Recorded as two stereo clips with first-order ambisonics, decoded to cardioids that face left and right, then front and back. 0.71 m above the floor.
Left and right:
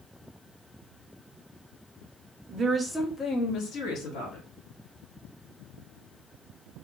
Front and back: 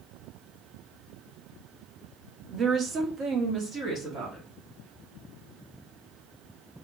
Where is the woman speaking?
125° right, 0.5 m; by 4.5 s 120° left, 1.2 m.